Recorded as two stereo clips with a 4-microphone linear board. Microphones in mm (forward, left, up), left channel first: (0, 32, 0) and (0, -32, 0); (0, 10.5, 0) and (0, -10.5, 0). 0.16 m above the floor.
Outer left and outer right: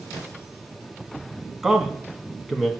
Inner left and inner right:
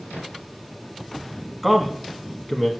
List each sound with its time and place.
1.6 s a man speaking: 10° right (ahead or behind), 1.3 m